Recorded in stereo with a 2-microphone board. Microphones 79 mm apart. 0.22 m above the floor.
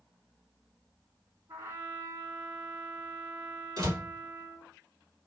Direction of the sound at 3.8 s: 55° right (ahead or behind).